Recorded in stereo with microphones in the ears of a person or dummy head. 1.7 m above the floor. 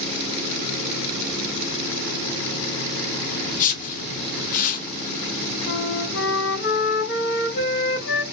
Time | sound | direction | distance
3.5 | a whoosh | 40° left (ahead or behind) | 1.4 m
5.7 | a flute | 55° left (ahead or behind) | 3 m